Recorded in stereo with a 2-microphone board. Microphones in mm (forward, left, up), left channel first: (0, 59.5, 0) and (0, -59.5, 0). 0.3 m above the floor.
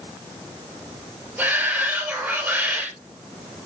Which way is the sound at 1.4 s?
10° right (ahead or behind).